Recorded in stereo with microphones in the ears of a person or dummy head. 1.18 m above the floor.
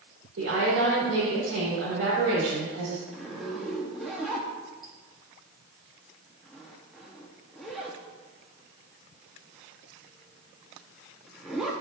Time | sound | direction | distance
0.4 | a woman speaking | 70° right (ahead or behind) | 2.5 m
3.1 | a zipper | centre (ahead or behind) | 0.7 m